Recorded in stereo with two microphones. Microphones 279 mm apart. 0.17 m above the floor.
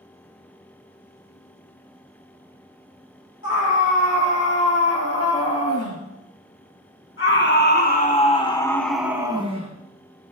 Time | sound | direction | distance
3.4 | a scream | 60° left (ahead or behind) | 5 m